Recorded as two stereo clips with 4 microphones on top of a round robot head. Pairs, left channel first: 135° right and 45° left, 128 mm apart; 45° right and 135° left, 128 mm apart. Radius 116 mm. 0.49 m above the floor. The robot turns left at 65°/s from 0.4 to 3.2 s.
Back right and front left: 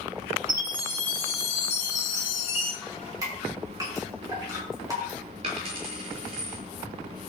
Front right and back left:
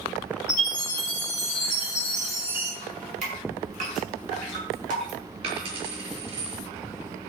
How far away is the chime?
About 6 m.